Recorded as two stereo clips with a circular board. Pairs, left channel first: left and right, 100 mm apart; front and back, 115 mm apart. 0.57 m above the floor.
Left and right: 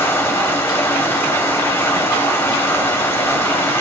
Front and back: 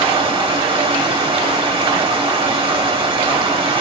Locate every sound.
0.0 s running water: 150° left, 1.2 m